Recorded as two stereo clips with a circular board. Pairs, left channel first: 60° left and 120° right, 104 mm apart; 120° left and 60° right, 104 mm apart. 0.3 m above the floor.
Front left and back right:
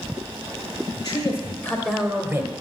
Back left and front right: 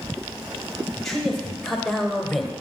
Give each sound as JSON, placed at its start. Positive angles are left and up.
{"t": 1.0, "sound": "a man speaking", "azimuth_deg": 35, "distance_m": 1.9}